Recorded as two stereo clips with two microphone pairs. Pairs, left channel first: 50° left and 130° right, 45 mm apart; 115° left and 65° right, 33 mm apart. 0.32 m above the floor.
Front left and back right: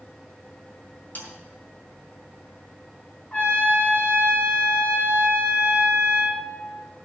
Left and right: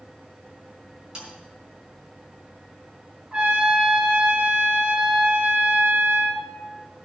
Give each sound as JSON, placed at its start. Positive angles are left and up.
{"t": 1.1, "sound": "a snare drum", "azimuth_deg": 0, "distance_m": 4.0}
{"t": 3.3, "sound": "a trumpet", "azimuth_deg": 0, "distance_m": 4.0}